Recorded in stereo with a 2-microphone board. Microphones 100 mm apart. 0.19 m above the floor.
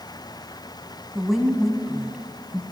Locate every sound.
1.1 s a woman speaking: centre (ahead or behind), 1.2 m